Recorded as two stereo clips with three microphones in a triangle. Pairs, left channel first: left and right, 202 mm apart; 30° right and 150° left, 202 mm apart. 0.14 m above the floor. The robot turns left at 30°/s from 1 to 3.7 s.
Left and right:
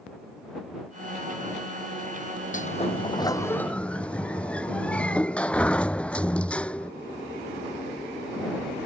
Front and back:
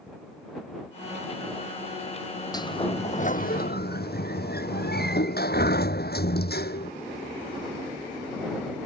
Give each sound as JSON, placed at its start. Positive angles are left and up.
{"t": 2.5, "sound": "a sliding door", "azimuth_deg": 40}